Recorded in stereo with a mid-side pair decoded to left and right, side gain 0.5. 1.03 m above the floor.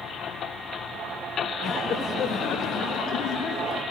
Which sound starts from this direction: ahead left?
Laughter, at 1.6 s.